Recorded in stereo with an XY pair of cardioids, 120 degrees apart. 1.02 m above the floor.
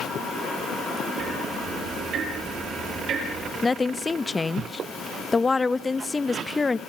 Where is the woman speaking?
20° left, 0.8 m.